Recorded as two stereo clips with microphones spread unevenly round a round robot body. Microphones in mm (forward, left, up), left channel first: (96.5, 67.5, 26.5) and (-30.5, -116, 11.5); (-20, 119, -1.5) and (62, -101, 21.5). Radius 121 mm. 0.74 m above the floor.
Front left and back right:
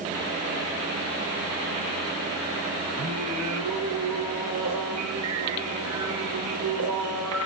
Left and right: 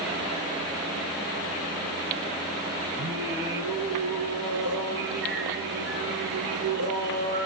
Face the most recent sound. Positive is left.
turn(degrees=-115)